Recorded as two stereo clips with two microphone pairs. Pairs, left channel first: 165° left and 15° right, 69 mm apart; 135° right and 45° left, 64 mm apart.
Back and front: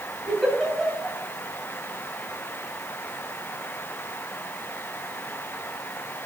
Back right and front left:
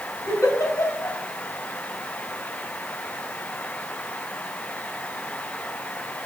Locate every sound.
0.3 s a giggle: 105° right, 2.5 m